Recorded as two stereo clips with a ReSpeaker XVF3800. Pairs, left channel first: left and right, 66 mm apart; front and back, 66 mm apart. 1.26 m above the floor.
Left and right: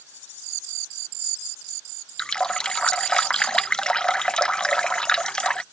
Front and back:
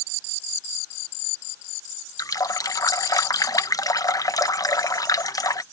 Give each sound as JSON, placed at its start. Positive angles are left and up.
{"t": 2.2, "sound": "a running tap", "azimuth_deg": 15}